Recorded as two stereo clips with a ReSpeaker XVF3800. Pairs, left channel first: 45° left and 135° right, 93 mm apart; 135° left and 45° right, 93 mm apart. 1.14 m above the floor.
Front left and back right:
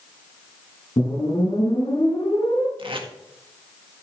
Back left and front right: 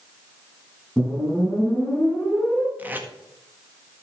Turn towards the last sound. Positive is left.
turn(degrees=-115)